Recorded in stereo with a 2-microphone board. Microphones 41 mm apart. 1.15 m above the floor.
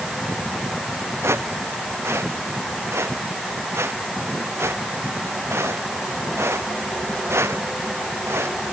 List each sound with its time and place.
1.2 s footsteps: 85° right